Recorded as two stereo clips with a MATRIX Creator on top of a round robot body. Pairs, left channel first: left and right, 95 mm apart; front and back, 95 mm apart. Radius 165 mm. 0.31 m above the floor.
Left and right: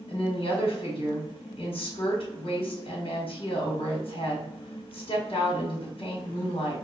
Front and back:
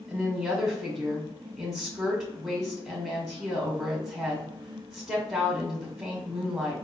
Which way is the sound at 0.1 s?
100° left.